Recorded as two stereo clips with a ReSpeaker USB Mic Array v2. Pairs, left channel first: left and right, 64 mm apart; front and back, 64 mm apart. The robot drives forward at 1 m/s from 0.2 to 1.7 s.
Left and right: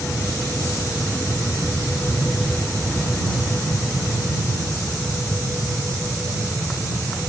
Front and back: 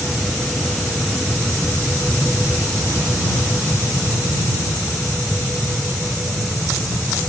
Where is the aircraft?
85° left; by 7.3 s 90° left.